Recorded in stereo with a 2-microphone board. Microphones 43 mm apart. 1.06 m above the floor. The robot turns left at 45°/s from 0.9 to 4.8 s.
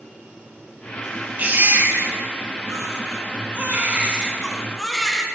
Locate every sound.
1.4 s a baby crying: 30° right, 1.2 m; by 5.2 s 175° left, 1.2 m